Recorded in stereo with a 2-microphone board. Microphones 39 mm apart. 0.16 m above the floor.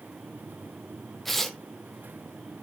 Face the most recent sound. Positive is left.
turn(degrees=5)  # may be behind; listen again after turning